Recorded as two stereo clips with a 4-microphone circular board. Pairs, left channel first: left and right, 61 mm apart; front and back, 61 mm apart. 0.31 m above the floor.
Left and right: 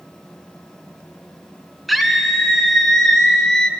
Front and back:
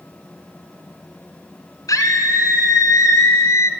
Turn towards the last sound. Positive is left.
turn(degrees=15)